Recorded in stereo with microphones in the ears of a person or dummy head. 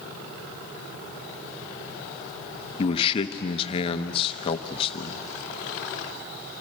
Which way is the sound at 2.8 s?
35° left (ahead or behind).